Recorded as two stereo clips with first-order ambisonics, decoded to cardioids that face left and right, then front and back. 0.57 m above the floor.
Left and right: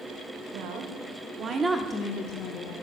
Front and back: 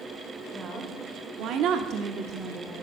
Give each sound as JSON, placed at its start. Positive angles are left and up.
{"t": 0.5, "sound": "a woman speaking", "azimuth_deg": -115, "distance_m": 2.0}